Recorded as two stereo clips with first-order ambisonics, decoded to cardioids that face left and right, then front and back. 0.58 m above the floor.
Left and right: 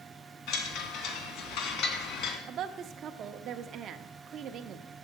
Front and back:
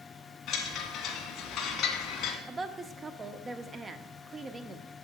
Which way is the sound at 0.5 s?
55° left.